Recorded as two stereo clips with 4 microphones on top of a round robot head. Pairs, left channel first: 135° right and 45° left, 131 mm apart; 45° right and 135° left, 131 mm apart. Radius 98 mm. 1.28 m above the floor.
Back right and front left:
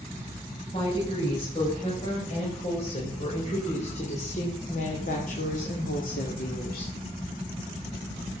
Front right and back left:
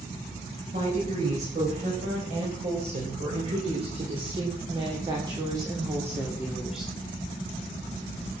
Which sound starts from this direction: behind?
A woman speaking, at 0.7 s.